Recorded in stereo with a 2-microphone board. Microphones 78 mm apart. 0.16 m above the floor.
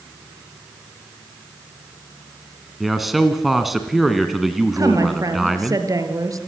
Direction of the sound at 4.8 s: 45° right (ahead or behind).